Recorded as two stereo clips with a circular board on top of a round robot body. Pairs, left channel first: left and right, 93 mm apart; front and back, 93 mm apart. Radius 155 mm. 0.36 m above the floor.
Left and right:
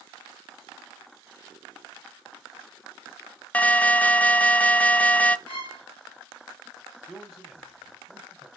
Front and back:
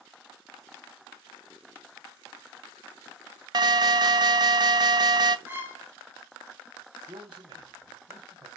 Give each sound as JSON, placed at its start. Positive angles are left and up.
{"t": 3.5, "sound": "an alarm", "azimuth_deg": 160, "distance_m": 0.7}
{"t": 5.5, "sound": "a violin", "azimuth_deg": 110, "distance_m": 2.0}
{"t": 7.1, "sound": "a man speaking", "azimuth_deg": 180, "distance_m": 2.0}